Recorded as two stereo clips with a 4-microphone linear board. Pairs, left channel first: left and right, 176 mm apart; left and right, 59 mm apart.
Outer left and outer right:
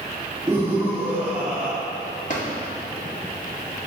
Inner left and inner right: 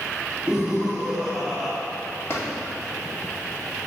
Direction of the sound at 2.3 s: 45° left (ahead or behind).